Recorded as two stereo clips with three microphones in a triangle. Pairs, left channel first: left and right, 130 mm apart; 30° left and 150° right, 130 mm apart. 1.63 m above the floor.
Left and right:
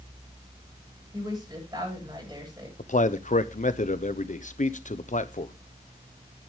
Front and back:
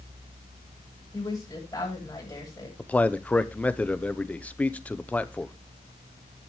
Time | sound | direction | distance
1.1 | a woman speaking | 30° right | 9 m
2.8 | a man speaking | 110° left | 0.9 m